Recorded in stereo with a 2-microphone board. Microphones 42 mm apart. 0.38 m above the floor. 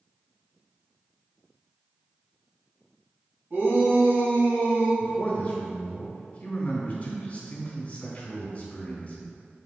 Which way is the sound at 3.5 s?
60° right (ahead or behind).